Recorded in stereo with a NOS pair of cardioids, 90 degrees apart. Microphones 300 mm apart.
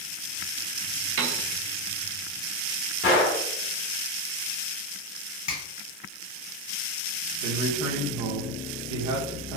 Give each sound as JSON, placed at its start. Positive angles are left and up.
{"t": 1.2, "sound": "a piano", "azimuth_deg": -50, "distance_m": 0.7}
{"t": 3.0, "sound": "a gunshot", "azimuth_deg": 50, "distance_m": 1.8}
{"t": 5.5, "sound": "a finger snap", "azimuth_deg": 60, "distance_m": 1.5}
{"t": 7.4, "sound": "a man speaking", "azimuth_deg": -70, "distance_m": 0.9}